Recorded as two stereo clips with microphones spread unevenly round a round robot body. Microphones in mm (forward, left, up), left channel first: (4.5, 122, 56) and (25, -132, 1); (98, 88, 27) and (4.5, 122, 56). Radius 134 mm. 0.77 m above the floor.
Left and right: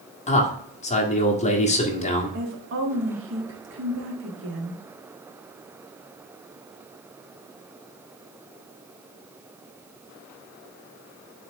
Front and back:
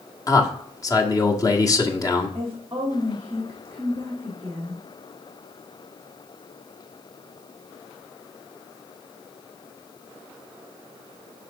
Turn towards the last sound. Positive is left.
turn(degrees=-115)